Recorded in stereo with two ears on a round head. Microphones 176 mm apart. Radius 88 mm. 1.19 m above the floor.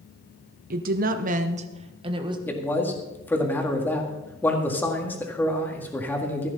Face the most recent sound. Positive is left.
turn(degrees=10)  # may be behind; listen again after turning